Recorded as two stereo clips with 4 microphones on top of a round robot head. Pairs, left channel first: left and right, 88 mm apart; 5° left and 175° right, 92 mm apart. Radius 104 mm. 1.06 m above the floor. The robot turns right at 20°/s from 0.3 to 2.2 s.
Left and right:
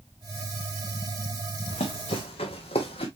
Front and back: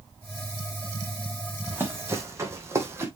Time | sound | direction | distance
1.7 | running footsteps | 115° left | 2.5 m